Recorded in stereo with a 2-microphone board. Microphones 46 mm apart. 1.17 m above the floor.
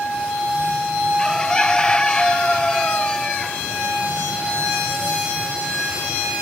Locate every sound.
1.2 s a bird: 20° left (ahead or behind), 0.5 m